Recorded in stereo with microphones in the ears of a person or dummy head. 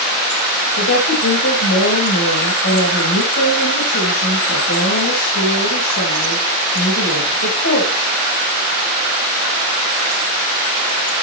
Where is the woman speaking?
70° left (ahead or behind), 5.5 m.